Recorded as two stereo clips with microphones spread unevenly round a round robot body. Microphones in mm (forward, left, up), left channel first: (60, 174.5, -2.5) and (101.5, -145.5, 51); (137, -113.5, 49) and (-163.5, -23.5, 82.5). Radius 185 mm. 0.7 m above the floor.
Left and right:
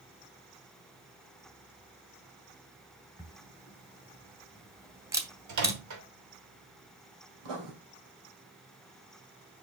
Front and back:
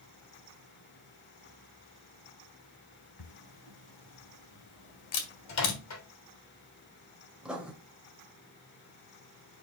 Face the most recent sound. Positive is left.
turn(degrees=-110)